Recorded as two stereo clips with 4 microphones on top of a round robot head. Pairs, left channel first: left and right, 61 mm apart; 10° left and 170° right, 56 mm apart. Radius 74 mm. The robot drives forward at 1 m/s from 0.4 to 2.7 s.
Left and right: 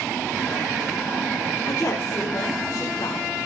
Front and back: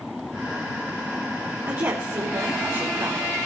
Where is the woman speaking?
145° left, 4 m; by 3.3 s 155° left, 5 m.